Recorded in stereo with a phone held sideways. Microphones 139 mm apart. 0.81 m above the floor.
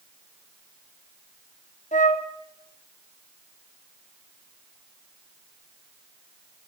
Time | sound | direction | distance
1.9 | a flute | 65° left (ahead or behind) | 1.6 m